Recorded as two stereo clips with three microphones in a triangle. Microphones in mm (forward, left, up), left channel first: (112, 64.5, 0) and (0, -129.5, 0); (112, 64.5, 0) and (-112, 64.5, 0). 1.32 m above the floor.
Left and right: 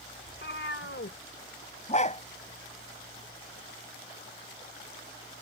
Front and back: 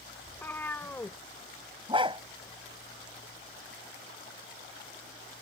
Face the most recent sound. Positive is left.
turn(degrees=115)